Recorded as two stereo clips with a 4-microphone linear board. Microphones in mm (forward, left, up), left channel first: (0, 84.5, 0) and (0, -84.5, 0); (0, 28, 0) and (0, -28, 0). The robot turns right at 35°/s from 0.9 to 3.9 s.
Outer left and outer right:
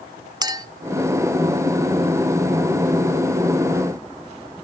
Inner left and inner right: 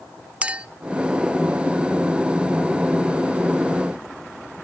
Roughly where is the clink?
Right.